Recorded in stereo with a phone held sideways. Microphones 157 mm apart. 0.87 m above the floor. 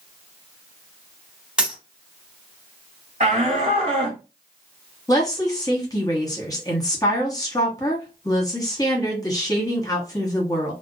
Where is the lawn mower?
No lawn mower in this recording.